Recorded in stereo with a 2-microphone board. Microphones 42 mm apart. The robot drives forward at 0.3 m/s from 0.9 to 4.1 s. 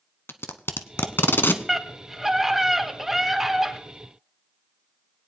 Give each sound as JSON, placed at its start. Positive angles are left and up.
{"t": 0.3, "sound": "tape being pulled", "side_deg": 70, "distance_m": 0.8}
{"t": 1.7, "sound": "a scream", "side_deg": -5, "distance_m": 1.7}